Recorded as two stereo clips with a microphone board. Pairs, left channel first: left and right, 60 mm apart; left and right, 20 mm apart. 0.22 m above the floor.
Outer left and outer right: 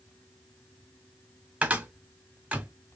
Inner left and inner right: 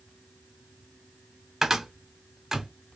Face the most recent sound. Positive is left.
turn(degrees=-25)  # may be behind; listen again after turning